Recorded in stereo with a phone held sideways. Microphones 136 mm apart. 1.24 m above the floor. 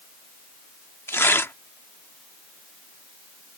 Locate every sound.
1.1 s tearing paper: 15° left (ahead or behind)